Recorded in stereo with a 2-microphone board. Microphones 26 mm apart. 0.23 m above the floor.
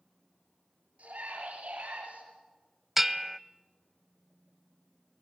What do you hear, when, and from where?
1.0 s a scream: 70° right (ahead or behind), 5 m; by 2.2 s 75° right (ahead or behind), 6 m
3.0 s a bell: 10° right (ahead or behind), 0.6 m